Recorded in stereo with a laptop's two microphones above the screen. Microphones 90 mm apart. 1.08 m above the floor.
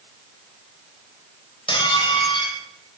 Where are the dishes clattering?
70° left (ahead or behind), 4 m.